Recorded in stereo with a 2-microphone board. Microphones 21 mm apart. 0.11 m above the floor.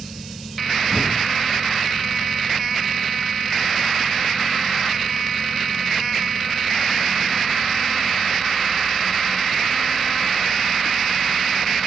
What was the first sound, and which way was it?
An explosion, 50° right (ahead or behind).